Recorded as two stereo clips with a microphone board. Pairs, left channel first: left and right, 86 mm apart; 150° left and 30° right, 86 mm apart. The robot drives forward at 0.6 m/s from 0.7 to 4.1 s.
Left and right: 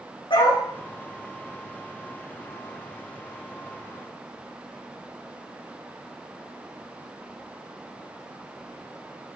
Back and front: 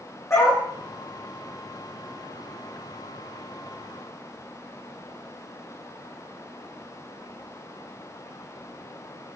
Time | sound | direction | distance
0.3 | a dog barking | 95° left | 5.5 m